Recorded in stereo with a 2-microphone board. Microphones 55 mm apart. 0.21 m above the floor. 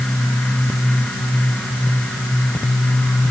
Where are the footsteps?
I don't hear footsteps.